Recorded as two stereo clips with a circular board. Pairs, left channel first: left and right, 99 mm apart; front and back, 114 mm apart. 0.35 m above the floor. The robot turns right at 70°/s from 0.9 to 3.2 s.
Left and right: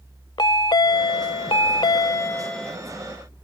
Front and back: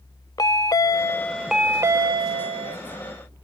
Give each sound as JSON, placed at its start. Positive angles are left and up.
{"t": 0.4, "sound": "a chime", "azimuth_deg": 50}